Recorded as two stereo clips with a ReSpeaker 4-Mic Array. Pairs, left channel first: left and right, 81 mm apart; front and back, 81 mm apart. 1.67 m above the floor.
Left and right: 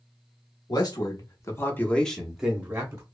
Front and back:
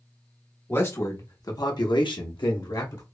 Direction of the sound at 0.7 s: 60° left.